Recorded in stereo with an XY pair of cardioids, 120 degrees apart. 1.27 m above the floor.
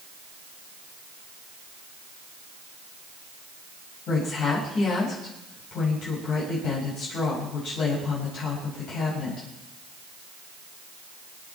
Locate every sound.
4.1 s a woman speaking: 65° left, 6 m